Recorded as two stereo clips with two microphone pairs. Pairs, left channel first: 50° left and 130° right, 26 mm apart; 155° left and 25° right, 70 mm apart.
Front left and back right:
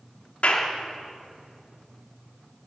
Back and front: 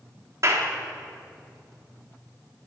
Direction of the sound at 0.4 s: 15° left.